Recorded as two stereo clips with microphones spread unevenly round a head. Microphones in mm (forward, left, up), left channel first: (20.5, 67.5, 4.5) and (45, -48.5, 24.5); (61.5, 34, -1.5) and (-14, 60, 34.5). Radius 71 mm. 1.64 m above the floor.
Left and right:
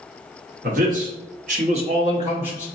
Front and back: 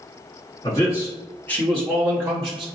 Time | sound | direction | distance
0.6 | a man speaking | 80° right | 1.2 m